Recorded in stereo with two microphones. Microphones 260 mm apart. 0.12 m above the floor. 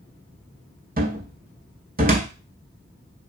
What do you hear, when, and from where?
1.0 s a cupboard door: 35° right (ahead or behind), 0.5 m